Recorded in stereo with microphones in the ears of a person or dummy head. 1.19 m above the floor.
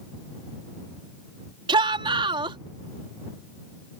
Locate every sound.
1.7 s a shout: 25° right (ahead or behind)